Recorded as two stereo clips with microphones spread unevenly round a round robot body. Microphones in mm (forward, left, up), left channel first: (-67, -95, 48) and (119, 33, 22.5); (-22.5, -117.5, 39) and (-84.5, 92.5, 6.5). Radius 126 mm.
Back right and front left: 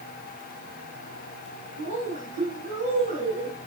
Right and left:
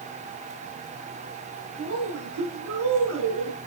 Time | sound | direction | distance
1.8 | a woman speaking | 90° left | 9.5 m